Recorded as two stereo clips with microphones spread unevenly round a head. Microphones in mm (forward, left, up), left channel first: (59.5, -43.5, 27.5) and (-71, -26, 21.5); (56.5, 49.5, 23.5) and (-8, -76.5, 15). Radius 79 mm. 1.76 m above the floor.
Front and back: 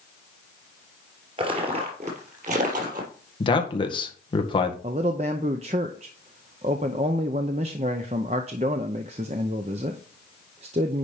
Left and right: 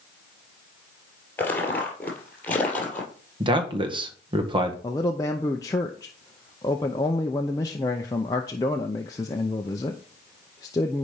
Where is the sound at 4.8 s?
125° left, 0.6 m.